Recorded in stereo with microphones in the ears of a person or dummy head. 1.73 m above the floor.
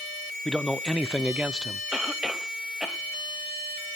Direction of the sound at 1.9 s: Centre (ahead or behind).